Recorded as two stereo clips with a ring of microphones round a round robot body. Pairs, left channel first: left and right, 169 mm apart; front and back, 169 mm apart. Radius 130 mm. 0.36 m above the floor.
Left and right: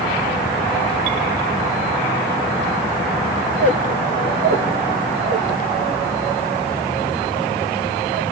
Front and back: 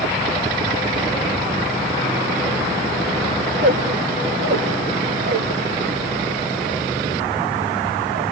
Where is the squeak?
135° right, 2.5 m.